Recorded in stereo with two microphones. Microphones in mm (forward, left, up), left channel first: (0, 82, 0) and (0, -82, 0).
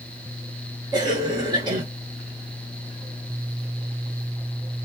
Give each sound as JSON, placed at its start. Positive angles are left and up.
{"t": 0.9, "sound": "a cough", "side_deg": -25, "distance_m": 1.5}